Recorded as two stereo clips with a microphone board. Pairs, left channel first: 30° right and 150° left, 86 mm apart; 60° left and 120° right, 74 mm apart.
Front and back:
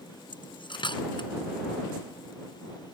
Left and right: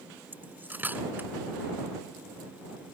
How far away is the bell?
I don't hear a bell.